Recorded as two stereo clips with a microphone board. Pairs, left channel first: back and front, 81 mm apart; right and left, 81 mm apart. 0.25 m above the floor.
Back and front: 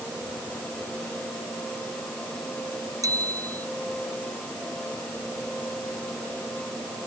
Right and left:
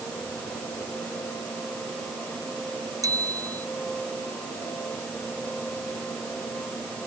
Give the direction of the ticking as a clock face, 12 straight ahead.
I don't hear ticking.